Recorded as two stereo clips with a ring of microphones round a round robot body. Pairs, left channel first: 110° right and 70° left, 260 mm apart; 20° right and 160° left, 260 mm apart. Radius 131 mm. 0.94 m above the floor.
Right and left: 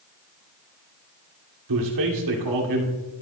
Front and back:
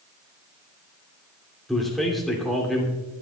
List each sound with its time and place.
1.7 s a man speaking: 65° left, 2.5 m